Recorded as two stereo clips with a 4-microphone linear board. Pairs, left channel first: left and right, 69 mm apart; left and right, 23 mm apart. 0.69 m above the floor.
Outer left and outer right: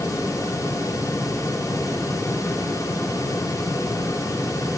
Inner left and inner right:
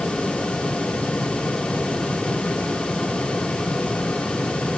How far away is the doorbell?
No doorbell in this recording.